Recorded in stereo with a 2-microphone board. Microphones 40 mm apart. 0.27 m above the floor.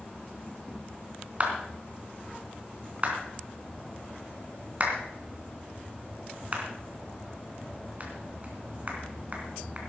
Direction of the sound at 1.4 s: 35° right (ahead or behind).